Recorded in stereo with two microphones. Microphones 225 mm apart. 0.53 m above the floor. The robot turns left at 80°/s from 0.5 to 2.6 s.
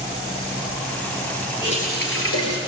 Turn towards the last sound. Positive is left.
turn(degrees=80)